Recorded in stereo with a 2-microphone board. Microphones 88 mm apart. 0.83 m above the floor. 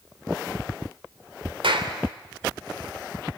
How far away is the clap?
About 2.5 m.